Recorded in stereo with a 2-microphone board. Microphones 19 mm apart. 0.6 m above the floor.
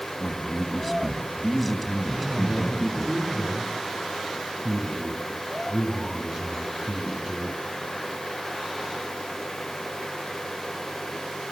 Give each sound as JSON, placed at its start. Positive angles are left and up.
{"t": 0.2, "sound": "a man speaking", "side_deg": 0, "distance_m": 4.5}
{"t": 2.1, "sound": "a man speaking", "side_deg": -40, "distance_m": 8.5}